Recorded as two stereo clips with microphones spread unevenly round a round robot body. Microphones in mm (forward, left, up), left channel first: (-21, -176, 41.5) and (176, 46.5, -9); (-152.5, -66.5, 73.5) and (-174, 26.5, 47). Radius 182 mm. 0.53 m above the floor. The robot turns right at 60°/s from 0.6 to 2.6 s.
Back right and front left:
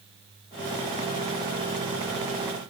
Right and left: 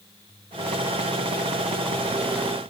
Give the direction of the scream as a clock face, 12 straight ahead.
No scream in this recording.